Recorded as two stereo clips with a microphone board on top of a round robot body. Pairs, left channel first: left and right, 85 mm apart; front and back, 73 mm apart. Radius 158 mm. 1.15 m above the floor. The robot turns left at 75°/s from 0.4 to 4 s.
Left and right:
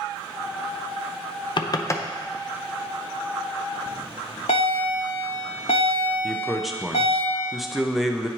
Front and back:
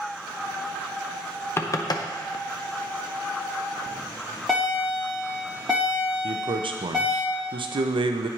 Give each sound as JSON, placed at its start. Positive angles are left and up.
{"t": 1.6, "sound": "knocking", "azimuth_deg": 60, "distance_m": 0.7}
{"t": 3.9, "sound": "a bell", "azimuth_deg": 100, "distance_m": 0.5}
{"t": 6.2, "sound": "a man speaking", "azimuth_deg": 180, "distance_m": 0.6}